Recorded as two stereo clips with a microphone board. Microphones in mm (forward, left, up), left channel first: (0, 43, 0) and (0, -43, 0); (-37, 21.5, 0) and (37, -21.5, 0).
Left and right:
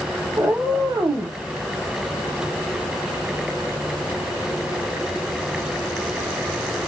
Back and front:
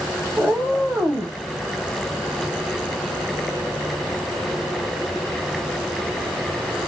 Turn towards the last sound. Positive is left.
turn(degrees=-90)